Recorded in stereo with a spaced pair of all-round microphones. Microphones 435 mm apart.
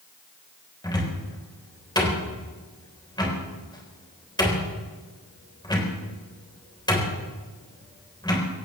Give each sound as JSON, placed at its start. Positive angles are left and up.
{"t": 0.8, "sound": "a cupboard door", "side_deg": 10, "distance_m": 3.5}